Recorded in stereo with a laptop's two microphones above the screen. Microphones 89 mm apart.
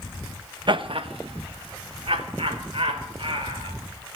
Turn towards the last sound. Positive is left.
turn(degrees=-75)  # may be behind; listen again after turning